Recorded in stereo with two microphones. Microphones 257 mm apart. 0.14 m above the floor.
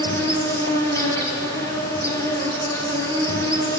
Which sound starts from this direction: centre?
An insect, at 0.0 s.